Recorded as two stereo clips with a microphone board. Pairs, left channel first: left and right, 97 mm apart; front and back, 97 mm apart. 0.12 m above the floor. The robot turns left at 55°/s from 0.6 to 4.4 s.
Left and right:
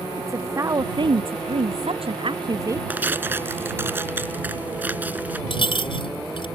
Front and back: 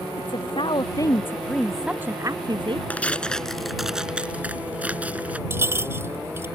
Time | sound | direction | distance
0.2 | a woman speaking | 30° right | ?
2.9 | tearing paper | 45° right | ?
5.5 | a clink | 115° left | ?